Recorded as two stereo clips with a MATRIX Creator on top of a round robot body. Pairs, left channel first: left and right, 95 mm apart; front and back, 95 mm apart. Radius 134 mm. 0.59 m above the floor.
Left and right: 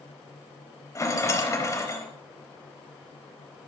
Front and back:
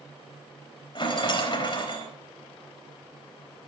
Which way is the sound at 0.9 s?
30° left.